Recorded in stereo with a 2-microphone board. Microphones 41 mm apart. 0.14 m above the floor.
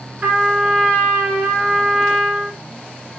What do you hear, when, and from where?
0.2 s a trumpet: 40° right (ahead or behind), 1.0 m